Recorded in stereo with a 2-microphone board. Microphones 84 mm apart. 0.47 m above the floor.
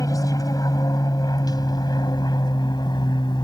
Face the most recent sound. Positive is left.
turn(degrees=55)  # may be behind; listen again after turning